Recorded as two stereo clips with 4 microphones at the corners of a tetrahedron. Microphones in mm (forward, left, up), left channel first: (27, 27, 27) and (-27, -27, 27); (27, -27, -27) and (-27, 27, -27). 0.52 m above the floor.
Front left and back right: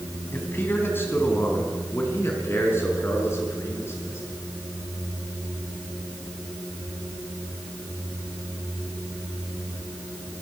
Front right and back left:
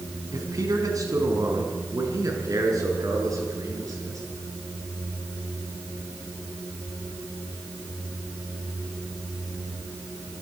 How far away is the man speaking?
About 4 m.